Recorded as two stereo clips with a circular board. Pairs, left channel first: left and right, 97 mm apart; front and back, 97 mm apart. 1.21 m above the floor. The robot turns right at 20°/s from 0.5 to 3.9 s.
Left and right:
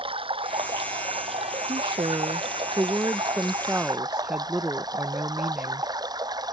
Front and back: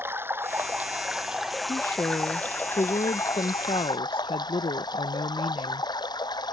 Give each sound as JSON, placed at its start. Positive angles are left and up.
{"t": 0.0, "sound": "running water", "azimuth_deg": -110}
{"t": 1.7, "sound": "a woman speaking", "azimuth_deg": -60}